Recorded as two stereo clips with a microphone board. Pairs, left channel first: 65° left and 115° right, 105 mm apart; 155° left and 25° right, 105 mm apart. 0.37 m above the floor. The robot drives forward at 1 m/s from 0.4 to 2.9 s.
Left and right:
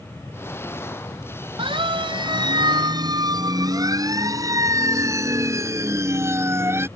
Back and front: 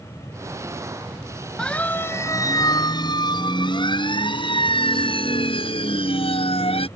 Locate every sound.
1.6 s a siren: 120° right; by 6.9 s straight behind